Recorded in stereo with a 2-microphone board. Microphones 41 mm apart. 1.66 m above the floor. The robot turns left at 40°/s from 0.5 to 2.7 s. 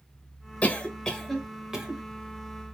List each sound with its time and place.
0.6 s a cough: 30° left (ahead or behind), 0.6 m; by 2.0 s 25° right (ahead or behind), 0.6 m